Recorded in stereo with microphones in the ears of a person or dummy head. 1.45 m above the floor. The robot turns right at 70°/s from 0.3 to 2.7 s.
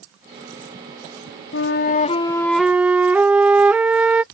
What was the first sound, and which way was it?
A flute, 100° left.